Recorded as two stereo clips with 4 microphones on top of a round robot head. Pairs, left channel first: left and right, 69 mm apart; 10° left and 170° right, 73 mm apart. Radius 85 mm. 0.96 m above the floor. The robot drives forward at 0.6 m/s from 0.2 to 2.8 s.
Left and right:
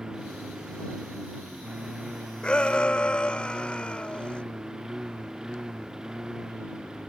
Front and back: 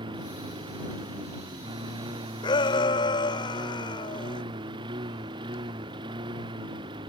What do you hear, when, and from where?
0.0 s a lawn mower: 170° right
2.4 s a shout: 15° left